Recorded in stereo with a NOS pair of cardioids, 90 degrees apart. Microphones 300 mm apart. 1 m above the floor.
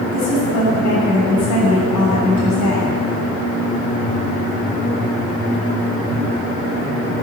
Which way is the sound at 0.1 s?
70° left.